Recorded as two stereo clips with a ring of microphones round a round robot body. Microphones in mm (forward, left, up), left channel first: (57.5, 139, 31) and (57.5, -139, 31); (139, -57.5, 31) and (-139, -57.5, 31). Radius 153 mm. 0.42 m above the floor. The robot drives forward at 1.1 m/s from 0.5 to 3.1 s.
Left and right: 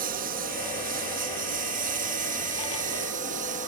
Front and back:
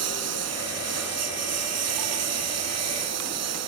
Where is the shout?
I don't hear a shout.